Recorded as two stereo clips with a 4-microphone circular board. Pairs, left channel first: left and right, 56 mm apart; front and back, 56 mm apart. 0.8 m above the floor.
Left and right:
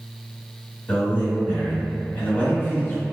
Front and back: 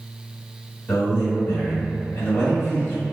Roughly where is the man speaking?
Ahead left.